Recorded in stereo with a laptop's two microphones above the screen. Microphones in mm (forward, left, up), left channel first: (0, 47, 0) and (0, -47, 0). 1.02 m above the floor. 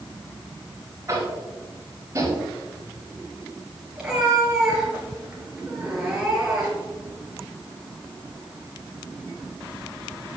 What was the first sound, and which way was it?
Tapping, 30° right (ahead or behind).